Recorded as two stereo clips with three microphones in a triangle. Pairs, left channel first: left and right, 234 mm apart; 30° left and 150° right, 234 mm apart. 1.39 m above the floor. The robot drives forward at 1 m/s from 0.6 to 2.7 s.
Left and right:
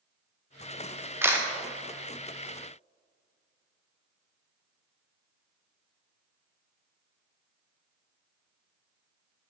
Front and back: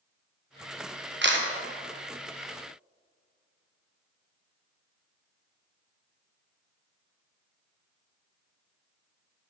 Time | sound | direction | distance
1.2 | a camera shutter | 170° right | 0.7 m